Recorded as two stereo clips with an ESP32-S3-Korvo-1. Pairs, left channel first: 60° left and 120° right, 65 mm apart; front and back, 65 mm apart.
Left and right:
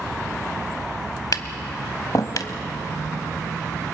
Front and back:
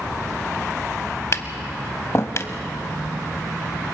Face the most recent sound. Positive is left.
turn(degrees=40)